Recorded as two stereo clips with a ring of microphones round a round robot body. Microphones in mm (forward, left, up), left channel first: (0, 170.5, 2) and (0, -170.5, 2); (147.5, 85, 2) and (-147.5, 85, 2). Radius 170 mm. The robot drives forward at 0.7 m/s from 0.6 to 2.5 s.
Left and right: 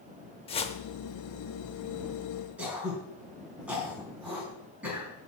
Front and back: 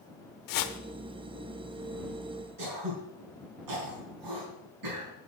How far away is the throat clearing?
About 4.5 m.